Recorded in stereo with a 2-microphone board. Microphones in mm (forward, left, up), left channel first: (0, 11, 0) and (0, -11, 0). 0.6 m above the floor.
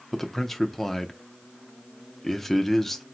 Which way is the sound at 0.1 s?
10° left (ahead or behind).